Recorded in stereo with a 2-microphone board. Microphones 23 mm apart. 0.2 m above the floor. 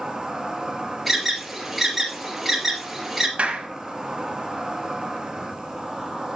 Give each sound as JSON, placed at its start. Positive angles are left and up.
{"t": 0.0, "sound": "an insect", "side_deg": -25, "distance_m": 1.4}
{"t": 1.1, "sound": "an alarm", "side_deg": 0, "distance_m": 2.5}
{"t": 3.4, "sound": "a clap", "side_deg": -60, "distance_m": 1.8}